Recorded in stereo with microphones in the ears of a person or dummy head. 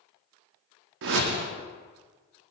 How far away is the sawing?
No sawing in this recording.